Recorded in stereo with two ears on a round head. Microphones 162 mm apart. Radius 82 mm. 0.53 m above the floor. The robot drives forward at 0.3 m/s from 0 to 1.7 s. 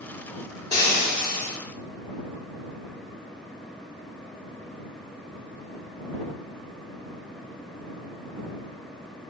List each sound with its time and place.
0.7 s frying: 20° left (ahead or behind), 1.3 m